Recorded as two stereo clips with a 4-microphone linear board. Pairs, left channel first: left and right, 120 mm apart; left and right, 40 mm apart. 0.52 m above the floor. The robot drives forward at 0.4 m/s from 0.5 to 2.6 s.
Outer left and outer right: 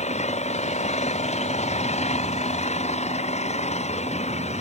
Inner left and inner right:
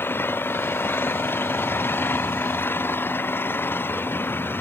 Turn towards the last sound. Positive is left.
turn(degrees=65)  # may be behind; listen again after turning